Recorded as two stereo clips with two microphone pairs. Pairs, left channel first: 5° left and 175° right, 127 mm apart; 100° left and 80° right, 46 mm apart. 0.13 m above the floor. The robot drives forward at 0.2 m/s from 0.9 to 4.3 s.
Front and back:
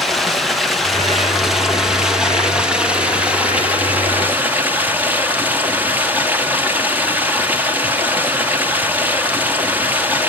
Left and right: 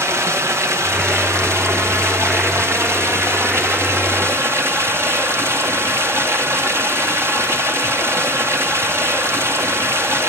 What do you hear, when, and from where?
0.0 s running water: 85° right, 2.5 m; by 10.3 s 100° right, 2.5 m